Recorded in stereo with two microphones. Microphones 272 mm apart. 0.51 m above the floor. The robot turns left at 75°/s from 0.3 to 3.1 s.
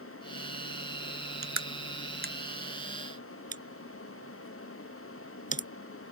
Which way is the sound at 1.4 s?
80° right.